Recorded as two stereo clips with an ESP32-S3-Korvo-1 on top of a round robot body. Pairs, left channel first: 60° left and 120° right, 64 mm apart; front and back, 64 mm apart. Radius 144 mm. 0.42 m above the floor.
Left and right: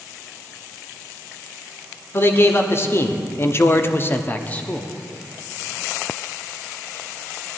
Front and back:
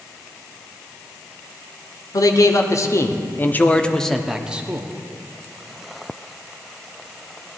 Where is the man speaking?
10° left, 1.5 m; by 4.9 s 130° left, 1.0 m.